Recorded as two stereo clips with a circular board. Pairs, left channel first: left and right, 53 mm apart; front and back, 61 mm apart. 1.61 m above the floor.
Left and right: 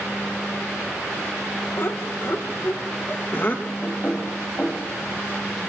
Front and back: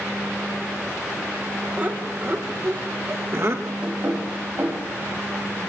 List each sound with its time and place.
1.8 s laughter: 120° left, 2 m; by 3.7 s 140° left, 3 m
3.8 s knocking: 140° left, 6.5 m